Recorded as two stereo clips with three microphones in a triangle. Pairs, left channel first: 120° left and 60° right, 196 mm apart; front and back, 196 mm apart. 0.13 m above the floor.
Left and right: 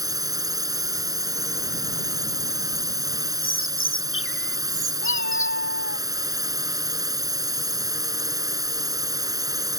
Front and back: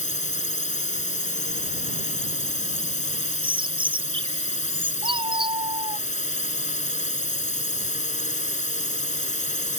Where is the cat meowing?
120° left.